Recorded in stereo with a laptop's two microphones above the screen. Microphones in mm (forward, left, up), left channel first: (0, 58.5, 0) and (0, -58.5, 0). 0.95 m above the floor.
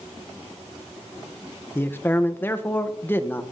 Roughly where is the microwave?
I don't hear a microwave.